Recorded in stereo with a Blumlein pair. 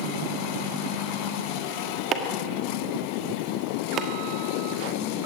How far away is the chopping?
About 1.5 m.